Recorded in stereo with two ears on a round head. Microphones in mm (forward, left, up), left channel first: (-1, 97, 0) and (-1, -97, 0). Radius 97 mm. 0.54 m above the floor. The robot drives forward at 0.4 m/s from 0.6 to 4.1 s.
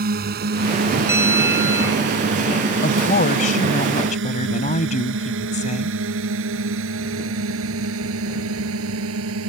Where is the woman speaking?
40° left (ahead or behind); by 5.9 s 35° left (ahead or behind).